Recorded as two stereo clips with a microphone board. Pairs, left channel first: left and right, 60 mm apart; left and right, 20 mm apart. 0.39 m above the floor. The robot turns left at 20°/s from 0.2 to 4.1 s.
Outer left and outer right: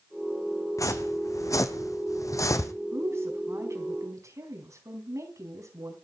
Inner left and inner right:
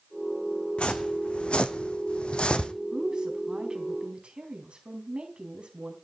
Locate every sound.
0.8 s footsteps: 75° left (ahead or behind), 1.7 m; by 2.7 s 65° left (ahead or behind), 1.2 m
2.9 s a woman speaking: 45° right (ahead or behind), 3.5 m; by 5.9 s 65° right (ahead or behind), 3.5 m